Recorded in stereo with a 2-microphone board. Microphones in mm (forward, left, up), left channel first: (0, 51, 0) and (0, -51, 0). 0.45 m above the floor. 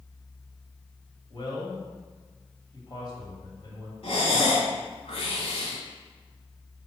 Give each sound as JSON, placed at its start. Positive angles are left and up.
{"t": 1.3, "sound": "a man speaking", "side_deg": 45, "distance_m": 2.0}
{"t": 4.0, "sound": "breathing", "side_deg": 65, "distance_m": 2.0}